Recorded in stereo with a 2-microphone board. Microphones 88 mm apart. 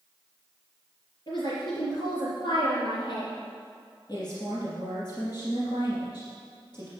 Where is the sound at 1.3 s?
45° left (ahead or behind), 4 m.